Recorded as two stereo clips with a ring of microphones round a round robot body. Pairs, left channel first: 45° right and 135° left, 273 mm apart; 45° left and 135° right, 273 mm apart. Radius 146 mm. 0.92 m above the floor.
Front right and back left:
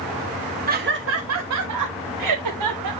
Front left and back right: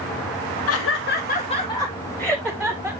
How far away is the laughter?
About 1.2 m.